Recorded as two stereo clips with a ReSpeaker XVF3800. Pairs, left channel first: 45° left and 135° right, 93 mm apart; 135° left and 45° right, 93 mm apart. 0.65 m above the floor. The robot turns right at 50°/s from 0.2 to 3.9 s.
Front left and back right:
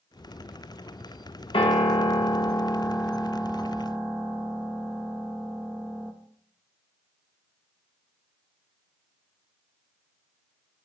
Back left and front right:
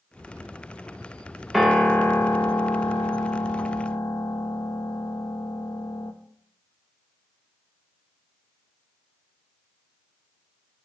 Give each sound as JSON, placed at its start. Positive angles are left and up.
{"t": 1.5, "sound": "a piano", "azimuth_deg": 40, "distance_m": 0.7}